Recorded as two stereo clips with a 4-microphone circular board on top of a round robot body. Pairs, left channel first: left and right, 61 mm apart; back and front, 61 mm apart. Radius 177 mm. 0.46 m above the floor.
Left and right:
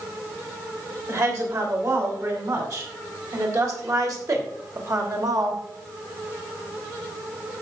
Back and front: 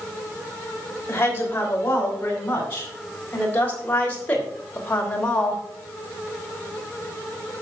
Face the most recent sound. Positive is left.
turn(degrees=-110)